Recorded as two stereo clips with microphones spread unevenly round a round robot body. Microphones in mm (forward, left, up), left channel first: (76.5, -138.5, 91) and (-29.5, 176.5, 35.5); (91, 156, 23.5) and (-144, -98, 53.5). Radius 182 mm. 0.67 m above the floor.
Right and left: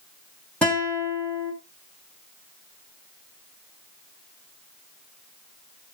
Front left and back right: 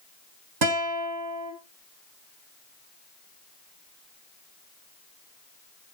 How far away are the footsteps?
I don't hear footsteps.